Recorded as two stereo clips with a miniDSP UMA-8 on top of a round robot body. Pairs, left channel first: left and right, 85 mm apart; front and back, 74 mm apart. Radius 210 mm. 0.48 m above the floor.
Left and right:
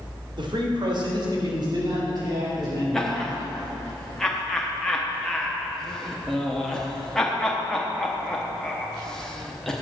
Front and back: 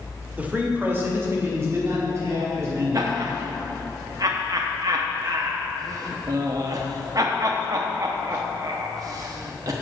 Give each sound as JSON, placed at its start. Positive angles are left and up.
{"t": 0.4, "sound": "a man speaking", "azimuth_deg": -110, "distance_m": 2.0}
{"t": 2.9, "sound": "laughter", "azimuth_deg": 170, "distance_m": 1.1}